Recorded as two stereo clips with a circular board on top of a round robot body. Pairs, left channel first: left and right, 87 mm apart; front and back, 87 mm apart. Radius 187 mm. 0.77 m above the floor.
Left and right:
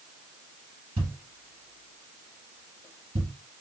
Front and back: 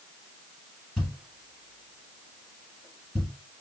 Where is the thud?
100° right, 1.0 m.